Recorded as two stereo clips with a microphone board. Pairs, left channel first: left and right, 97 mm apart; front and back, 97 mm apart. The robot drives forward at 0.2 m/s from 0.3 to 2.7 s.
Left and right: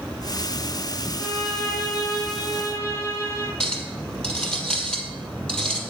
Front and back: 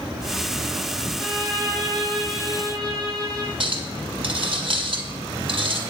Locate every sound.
1.2 s a violin: 135° left, 2.5 m; by 3.5 s 140° left, 2.5 m
3.6 s a clink: 170° left, 1.6 m